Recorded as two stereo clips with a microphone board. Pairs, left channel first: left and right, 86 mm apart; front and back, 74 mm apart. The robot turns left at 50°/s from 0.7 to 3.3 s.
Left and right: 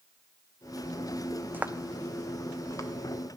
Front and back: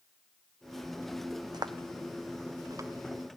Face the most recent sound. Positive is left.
turn(degrees=115)